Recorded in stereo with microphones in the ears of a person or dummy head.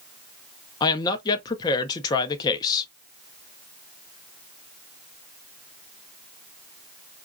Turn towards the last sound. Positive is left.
turn(degrees=25)  # may be behind; listen again after turning